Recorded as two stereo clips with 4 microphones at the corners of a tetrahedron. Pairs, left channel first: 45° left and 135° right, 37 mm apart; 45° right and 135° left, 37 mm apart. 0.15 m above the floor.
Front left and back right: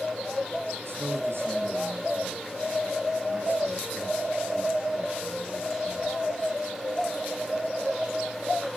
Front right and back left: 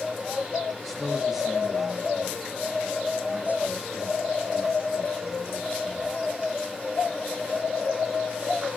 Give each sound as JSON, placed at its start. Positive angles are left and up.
{"t": 0.8, "sound": "a man speaking", "azimuth_deg": -135, "distance_m": 5.0}